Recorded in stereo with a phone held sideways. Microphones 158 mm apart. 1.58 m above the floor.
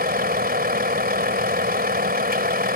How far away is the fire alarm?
No fire alarm in this recording.